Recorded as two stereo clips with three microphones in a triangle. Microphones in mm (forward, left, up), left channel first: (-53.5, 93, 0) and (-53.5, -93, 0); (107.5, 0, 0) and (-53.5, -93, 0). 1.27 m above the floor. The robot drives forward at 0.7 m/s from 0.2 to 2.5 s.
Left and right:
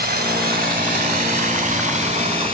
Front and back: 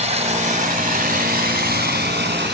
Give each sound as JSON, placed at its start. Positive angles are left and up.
{"t": 0.0, "sound": "running water", "azimuth_deg": -105, "distance_m": 1.8}